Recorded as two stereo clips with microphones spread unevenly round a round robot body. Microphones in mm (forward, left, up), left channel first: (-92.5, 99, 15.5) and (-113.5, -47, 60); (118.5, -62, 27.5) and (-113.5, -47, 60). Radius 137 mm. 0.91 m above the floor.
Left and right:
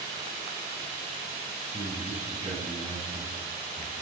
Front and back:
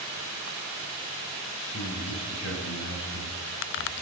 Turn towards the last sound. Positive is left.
turn(degrees=-40)